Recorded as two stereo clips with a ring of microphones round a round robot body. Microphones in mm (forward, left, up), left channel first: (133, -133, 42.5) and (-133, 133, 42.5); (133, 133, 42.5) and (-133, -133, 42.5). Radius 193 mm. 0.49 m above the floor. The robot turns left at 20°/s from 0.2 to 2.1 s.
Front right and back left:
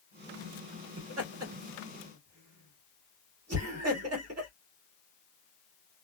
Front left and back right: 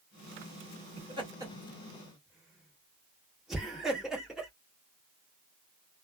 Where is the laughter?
160° left, 1.6 m; by 4.5 s 135° left, 1.6 m.